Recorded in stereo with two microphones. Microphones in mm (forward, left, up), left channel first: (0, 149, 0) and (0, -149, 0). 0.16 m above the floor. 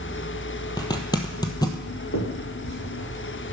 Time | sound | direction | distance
0.8 | a zipper | 15° left (ahead or behind) | 1.2 m
2.1 | a finger snap | 65° left (ahead or behind) | 4 m